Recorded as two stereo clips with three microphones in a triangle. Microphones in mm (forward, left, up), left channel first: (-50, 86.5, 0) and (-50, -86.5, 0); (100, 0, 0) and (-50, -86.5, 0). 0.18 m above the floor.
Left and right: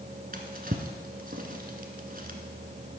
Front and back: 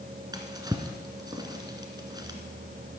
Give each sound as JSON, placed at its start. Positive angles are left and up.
{"t": 0.3, "sound": "a drawer", "azimuth_deg": -85, "distance_m": 1.3}